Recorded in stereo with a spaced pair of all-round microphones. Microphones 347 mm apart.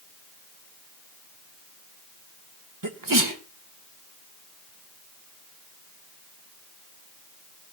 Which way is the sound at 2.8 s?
65° right (ahead or behind).